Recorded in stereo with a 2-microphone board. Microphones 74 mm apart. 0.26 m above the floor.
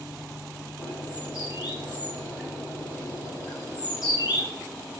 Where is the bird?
80° left, 3 m.